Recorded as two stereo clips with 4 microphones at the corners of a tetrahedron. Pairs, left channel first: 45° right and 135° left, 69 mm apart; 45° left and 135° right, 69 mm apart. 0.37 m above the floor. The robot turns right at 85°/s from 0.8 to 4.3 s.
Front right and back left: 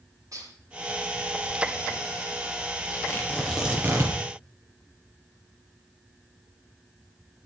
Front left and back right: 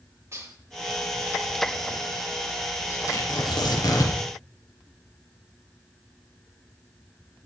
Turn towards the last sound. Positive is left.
turn(degrees=110)